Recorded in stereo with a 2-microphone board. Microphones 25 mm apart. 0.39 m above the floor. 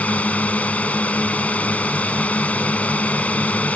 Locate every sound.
0.0 s a drone: 70° left (ahead or behind)